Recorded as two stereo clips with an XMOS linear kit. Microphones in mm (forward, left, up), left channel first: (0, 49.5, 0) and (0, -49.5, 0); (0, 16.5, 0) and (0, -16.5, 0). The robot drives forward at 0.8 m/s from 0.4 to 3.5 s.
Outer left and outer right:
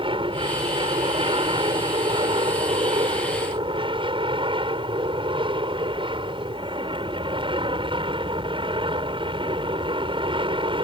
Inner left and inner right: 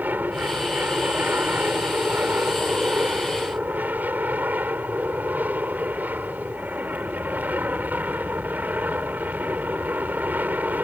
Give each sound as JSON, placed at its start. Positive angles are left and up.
{"t": 0.0, "sound": "an aircraft", "side_deg": -65}